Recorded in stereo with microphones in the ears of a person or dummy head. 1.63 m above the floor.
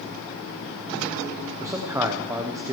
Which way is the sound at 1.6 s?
10° right (ahead or behind).